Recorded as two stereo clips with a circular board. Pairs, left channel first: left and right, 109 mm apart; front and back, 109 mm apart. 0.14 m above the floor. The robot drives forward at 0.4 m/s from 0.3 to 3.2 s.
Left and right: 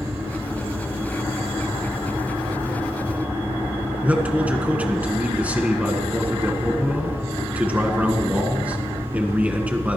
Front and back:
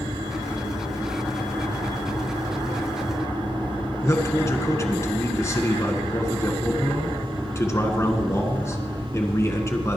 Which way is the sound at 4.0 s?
25° right.